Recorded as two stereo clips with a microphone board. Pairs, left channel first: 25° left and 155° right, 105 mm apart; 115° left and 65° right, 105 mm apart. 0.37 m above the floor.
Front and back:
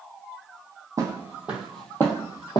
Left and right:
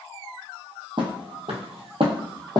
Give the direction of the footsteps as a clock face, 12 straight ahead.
3 o'clock.